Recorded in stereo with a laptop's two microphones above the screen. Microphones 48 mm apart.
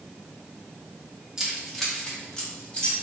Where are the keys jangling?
15° right (ahead or behind), 1.0 m; by 2.9 s 25° left (ahead or behind), 2.5 m.